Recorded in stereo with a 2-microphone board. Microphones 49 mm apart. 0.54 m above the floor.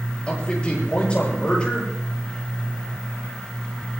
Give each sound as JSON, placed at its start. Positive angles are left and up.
{"t": 0.3, "sound": "a man speaking", "side_deg": 25, "distance_m": 10.0}